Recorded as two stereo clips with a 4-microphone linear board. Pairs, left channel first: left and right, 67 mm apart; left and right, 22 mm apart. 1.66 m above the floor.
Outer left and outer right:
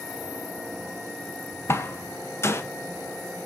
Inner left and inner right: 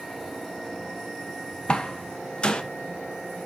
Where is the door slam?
40° left (ahead or behind), 0.9 m.